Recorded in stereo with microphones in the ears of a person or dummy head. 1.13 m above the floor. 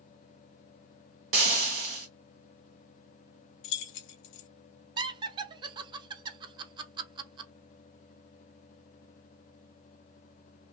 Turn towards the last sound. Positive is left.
turn(degrees=-25)  # may be behind; listen again after turning